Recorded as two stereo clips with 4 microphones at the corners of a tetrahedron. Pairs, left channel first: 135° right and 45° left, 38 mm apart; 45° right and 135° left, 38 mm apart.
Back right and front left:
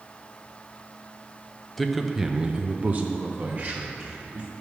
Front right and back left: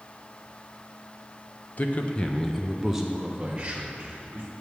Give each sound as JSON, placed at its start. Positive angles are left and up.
{"t": 1.8, "sound": "a man speaking", "azimuth_deg": -50, "distance_m": 0.7}